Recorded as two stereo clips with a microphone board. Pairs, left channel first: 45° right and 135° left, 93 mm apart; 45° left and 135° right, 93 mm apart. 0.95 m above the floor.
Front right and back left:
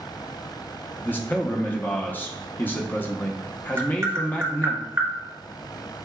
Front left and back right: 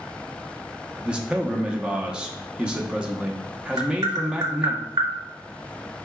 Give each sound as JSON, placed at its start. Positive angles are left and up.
{"t": 1.0, "sound": "a man speaking", "azimuth_deg": -75, "distance_m": 0.7}
{"t": 3.8, "sound": "tapping", "azimuth_deg": -175, "distance_m": 1.2}